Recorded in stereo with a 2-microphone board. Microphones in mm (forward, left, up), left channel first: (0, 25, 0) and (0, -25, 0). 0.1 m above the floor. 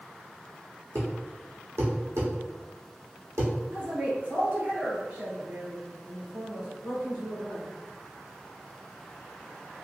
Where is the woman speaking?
40° right (ahead or behind), 1.7 m.